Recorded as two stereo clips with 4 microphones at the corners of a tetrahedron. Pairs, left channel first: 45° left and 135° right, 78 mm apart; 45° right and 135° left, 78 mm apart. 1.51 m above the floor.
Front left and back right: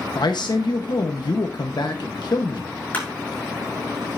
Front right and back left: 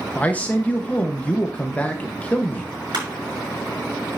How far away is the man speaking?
About 1.1 m.